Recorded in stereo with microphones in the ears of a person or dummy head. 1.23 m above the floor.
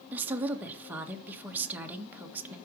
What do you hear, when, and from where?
0.1 s a woman speaking: 10° right (ahead or behind), 1.6 m